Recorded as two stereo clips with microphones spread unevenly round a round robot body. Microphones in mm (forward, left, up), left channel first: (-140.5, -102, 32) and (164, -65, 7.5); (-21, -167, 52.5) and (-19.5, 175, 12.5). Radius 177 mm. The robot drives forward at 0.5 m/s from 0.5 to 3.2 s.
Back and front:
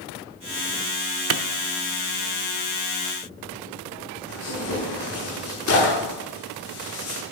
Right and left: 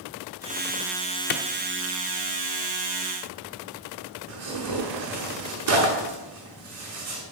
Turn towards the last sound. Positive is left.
turn(degrees=135)